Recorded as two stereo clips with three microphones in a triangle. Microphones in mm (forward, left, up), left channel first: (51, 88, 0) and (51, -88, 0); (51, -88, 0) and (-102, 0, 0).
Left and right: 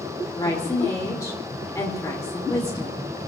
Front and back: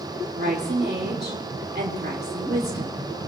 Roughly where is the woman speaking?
Behind.